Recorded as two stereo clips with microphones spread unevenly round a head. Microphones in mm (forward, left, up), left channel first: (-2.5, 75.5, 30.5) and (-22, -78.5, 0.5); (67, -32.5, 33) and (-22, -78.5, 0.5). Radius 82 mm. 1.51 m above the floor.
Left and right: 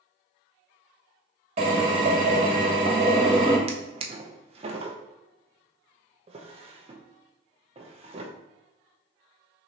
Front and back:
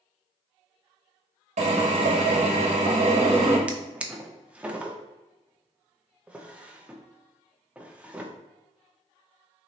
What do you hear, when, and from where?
1.6 s a drill: 150° right, 1.4 m
3.7 s a drawer: 55° right, 0.6 m